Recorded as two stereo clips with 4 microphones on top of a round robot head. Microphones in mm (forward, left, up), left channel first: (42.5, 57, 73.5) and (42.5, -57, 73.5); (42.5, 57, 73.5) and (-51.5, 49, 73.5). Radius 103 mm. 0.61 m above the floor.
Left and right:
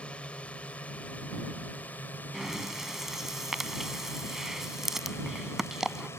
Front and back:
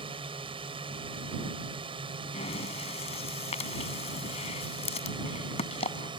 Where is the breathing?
5° right.